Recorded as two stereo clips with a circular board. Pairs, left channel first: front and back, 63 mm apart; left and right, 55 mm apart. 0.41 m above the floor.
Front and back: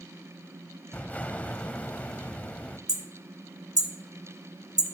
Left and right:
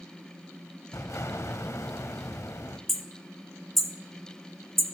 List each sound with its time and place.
0.9 s an explosion: 65° left, 0.8 m
2.9 s hammering: 175° left, 1.1 m